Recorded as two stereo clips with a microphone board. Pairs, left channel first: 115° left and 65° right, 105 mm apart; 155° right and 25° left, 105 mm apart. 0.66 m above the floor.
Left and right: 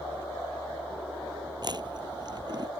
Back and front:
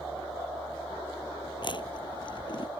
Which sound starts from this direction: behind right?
Chewing, at 1.6 s.